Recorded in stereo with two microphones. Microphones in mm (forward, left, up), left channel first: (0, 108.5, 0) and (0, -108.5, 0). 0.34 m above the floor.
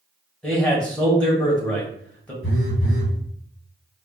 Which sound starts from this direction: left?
A phone buzzing, at 2.4 s.